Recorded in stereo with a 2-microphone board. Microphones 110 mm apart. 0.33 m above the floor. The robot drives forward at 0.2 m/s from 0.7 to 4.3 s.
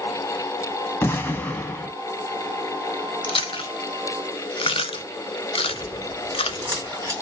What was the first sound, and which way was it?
An explosion, 20° left (ahead or behind).